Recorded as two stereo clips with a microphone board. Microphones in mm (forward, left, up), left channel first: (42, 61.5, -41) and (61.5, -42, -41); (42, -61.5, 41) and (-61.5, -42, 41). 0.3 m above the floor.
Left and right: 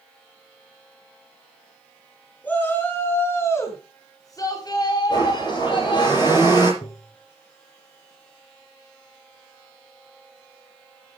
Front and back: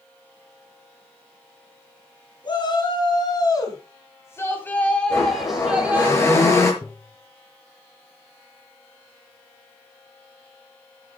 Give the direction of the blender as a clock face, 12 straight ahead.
10 o'clock.